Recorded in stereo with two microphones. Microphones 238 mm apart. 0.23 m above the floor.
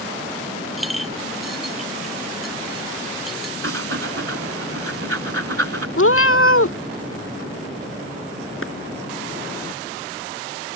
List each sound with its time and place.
0.8 s a clink: centre (ahead or behind)
3.6 s breathing: 65° right (ahead or behind)
6.0 s a cat meowing: 60° left (ahead or behind)
8.6 s a clap: 55° left (ahead or behind)